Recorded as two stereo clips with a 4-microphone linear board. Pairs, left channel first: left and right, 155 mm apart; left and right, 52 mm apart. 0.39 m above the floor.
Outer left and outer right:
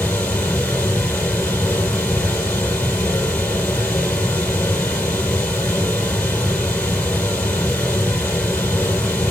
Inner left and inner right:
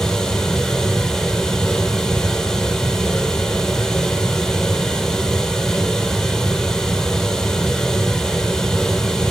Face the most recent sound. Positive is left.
turn(degrees=10)  # may be behind; listen again after turning